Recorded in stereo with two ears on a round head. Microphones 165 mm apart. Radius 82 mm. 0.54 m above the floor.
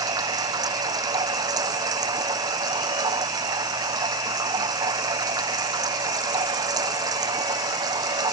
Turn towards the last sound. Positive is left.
turn(degrees=-20)  # may be behind; listen again after turning